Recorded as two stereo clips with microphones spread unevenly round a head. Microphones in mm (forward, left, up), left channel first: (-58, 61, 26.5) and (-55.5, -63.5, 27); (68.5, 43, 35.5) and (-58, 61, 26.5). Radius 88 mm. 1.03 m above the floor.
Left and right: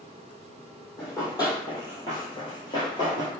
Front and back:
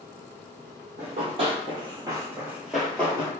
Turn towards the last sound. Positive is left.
turn(degrees=40)